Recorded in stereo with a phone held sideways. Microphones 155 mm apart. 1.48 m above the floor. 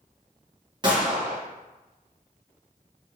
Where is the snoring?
I don't hear snoring.